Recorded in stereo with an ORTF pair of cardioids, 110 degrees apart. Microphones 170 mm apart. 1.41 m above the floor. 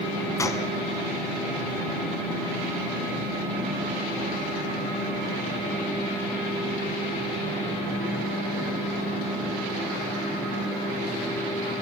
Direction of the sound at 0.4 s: 20° left.